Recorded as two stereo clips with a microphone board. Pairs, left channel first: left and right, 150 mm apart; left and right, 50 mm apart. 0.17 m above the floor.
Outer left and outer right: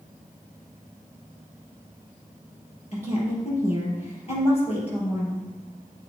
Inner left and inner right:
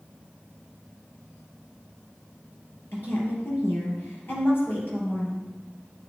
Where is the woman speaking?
45° left (ahead or behind), 4 m.